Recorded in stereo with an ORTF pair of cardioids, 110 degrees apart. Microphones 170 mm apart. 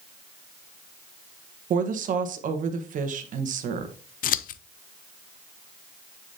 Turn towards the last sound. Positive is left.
turn(degrees=55)